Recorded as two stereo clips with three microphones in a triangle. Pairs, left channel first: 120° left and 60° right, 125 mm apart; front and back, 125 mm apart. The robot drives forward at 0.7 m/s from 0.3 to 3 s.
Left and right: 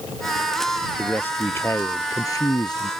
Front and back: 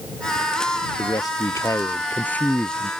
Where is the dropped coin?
I don't hear a dropped coin.